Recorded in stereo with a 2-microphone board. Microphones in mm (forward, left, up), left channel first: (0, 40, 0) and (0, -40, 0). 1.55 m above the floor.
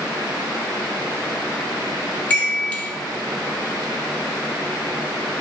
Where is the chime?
20° left (ahead or behind), 0.9 m.